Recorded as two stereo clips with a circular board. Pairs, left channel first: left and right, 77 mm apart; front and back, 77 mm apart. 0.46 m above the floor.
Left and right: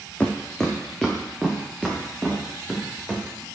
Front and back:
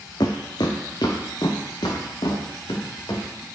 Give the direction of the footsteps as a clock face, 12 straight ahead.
11 o'clock.